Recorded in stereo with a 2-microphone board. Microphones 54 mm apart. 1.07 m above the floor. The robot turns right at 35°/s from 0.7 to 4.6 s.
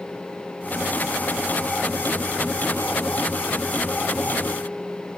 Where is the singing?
No singing in this recording.